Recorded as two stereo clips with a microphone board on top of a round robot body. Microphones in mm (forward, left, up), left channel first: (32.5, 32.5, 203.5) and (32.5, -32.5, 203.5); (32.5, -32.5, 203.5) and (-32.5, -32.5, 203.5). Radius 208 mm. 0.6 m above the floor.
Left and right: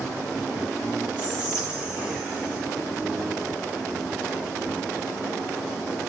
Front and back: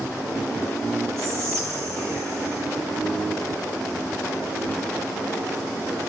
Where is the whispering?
155° right, 1.4 m.